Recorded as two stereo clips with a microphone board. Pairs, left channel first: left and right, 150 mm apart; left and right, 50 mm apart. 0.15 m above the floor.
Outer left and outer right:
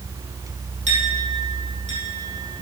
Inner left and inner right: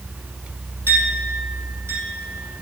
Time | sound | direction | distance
0.9 | a clink | 60° right (ahead or behind) | 4.5 m